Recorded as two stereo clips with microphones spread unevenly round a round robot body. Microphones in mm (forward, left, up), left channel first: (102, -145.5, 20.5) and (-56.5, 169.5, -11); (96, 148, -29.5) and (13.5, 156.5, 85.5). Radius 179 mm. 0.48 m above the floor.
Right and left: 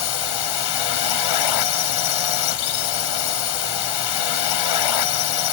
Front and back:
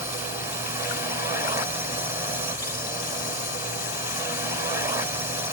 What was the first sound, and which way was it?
A drone, 80° right.